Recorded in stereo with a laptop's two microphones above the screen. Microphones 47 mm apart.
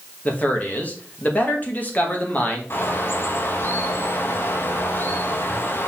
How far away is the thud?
No thud in this recording.